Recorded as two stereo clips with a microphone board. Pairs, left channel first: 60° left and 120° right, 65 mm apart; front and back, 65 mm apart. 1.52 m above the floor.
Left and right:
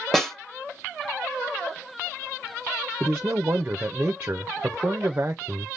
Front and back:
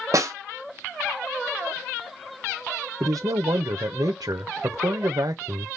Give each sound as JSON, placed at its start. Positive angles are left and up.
{"t": 0.1, "sound": "a snare drum", "azimuth_deg": 145, "distance_m": 1.4}
{"t": 3.0, "sound": "a man speaking", "azimuth_deg": -175, "distance_m": 0.6}